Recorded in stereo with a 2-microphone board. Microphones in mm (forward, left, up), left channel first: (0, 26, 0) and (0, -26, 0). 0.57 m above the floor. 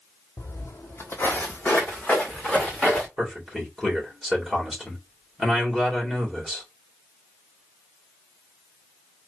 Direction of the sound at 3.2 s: 5° right (ahead or behind).